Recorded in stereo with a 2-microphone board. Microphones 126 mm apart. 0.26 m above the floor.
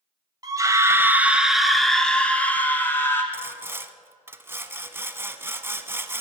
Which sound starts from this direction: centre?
Sawing, at 3.3 s.